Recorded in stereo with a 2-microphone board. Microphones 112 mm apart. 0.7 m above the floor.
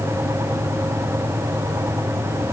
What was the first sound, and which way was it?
Only background noise.